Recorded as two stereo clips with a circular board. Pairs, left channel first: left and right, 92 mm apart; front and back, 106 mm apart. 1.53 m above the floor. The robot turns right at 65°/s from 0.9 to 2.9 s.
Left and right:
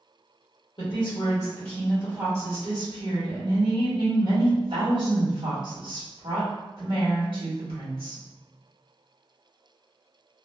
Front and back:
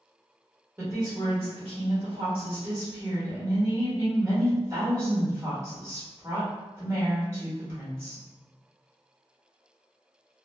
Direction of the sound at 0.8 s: 115° left.